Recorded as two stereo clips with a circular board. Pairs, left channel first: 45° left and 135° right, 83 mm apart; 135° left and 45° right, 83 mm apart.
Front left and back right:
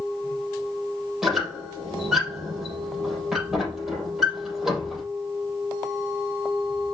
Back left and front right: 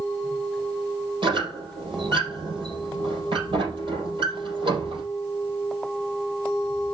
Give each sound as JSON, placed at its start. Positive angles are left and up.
{"t": 1.2, "sound": "a squeak", "azimuth_deg": -50, "distance_m": 4.0}